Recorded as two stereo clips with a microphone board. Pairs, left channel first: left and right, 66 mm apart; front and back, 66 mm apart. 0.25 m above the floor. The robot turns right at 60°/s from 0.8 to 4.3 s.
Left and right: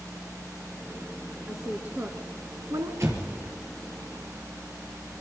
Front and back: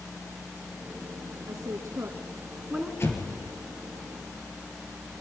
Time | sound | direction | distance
1.5 | a woman speaking | 175° right | 2.5 m
3.0 | an explosion | 50° right | 5 m